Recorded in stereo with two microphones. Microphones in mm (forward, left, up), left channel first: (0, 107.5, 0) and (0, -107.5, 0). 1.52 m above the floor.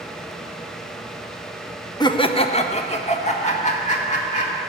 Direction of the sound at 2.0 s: 20° left (ahead or behind).